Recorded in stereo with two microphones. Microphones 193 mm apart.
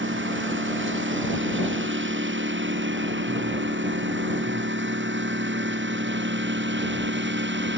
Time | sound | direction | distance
0.0 | a lawn mower | 80° right | ?